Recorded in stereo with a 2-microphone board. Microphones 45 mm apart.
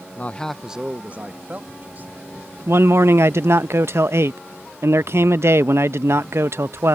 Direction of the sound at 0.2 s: 40° left (ahead or behind).